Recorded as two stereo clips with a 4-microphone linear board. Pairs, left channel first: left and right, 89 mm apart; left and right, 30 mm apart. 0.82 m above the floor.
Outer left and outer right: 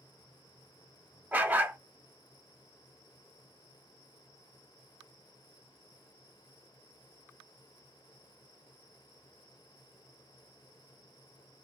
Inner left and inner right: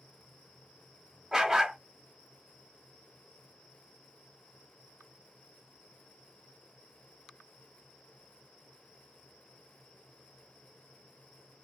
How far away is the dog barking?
About 0.6 m.